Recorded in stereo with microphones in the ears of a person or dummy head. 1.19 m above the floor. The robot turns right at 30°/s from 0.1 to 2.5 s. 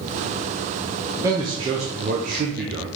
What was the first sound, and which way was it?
A man speaking, 160° right.